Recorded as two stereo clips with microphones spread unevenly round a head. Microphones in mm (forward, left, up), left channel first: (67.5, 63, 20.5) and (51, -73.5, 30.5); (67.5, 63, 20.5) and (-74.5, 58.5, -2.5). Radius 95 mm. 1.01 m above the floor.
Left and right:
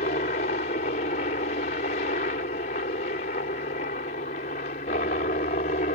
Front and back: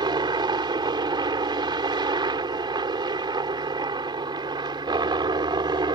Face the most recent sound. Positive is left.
turn(degrees=125)